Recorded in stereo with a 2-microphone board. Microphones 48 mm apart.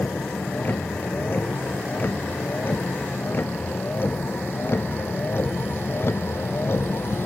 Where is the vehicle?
40° left (ahead or behind); by 7.3 s 55° left (ahead or behind).